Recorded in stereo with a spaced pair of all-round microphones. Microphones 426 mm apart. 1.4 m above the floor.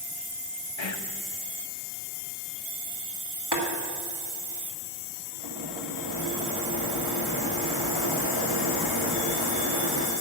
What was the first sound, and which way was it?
Whispering, 85° left.